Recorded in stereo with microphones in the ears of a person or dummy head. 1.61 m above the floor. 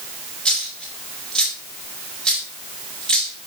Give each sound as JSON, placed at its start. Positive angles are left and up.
{"t": 0.5, "sound": "a dropped coin", "side_deg": 5, "distance_m": 2.5}